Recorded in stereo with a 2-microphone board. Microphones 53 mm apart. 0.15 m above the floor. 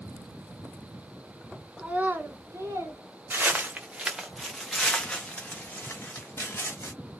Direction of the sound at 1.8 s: 20° right (ahead or behind).